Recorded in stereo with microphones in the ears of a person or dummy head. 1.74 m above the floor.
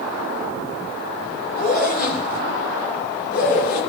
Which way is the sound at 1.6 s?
50° left (ahead or behind).